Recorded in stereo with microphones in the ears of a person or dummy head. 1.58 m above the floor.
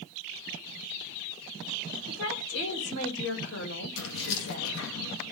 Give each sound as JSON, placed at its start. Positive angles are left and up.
{"t": 2.1, "sound": "a woman speaking", "side_deg": 75, "distance_m": 6.5}
{"t": 4.0, "sound": "keys jangling", "side_deg": 75, "distance_m": 1.9}